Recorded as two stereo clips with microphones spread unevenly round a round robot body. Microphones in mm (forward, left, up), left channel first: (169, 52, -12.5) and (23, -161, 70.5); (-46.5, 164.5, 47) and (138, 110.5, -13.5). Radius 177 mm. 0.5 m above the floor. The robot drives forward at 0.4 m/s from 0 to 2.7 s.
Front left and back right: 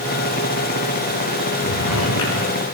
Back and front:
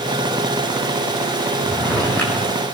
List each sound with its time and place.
1.6 s a drawer: 80° left, 8.5 m